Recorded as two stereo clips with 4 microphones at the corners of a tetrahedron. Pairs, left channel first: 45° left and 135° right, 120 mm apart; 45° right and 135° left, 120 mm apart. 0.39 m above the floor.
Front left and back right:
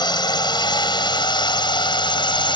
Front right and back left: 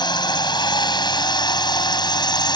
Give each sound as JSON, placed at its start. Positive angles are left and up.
{"t": 0.0, "sound": "a drone", "azimuth_deg": 0}